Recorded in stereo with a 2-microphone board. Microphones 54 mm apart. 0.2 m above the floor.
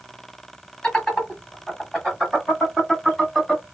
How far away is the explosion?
No explosion in this recording.